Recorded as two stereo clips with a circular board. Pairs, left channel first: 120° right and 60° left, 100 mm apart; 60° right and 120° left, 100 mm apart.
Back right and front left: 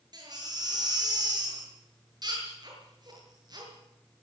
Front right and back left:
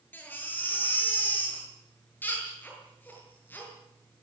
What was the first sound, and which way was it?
A baby crying, 10° left.